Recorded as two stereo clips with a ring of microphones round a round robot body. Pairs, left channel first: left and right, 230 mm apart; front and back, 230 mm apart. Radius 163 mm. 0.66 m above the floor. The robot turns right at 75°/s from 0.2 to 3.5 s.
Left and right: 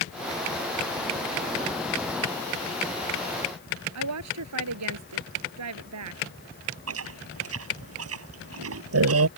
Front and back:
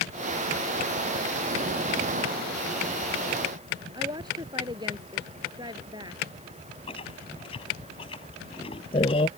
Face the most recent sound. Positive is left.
turn(degrees=-75)